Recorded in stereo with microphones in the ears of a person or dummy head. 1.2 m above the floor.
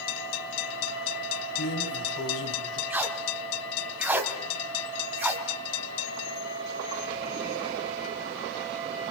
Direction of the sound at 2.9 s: 15° right (ahead or behind).